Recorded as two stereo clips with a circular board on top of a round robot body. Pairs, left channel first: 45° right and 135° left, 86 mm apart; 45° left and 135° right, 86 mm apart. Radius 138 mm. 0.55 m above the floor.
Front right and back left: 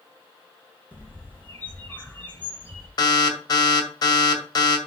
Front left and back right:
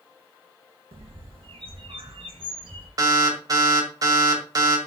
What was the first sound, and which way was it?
A bird, 115° right.